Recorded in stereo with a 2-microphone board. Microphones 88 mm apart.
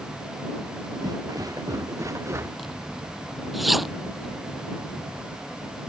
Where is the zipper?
Centre (ahead or behind).